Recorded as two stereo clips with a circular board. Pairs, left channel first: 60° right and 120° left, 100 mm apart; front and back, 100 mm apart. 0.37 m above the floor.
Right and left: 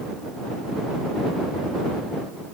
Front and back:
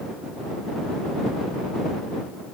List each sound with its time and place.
Only background noise.